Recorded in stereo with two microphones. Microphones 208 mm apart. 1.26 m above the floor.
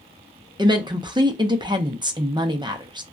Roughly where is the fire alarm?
I don't hear a fire alarm.